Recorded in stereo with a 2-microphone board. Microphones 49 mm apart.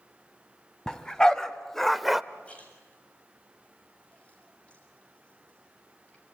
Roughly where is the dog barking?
Centre.